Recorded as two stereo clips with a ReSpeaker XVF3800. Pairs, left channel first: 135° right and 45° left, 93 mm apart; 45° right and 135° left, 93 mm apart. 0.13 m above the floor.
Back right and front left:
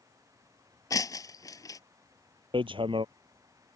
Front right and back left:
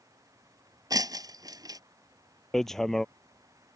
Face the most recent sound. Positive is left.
turn(degrees=40)